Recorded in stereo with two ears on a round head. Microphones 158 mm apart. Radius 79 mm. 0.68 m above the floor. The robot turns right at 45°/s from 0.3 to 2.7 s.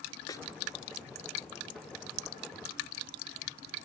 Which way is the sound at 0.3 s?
20° left (ahead or behind).